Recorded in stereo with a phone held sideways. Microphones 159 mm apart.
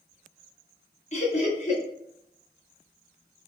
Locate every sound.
1.1 s laughter: 45° left (ahead or behind), 1.4 m